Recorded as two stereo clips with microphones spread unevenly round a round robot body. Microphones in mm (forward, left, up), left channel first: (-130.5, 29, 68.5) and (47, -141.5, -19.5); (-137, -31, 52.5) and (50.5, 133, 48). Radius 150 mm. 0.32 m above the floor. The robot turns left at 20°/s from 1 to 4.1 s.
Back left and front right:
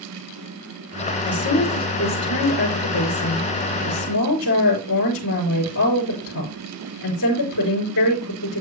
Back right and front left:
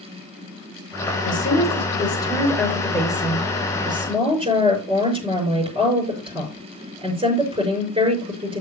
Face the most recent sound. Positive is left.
turn(degrees=110)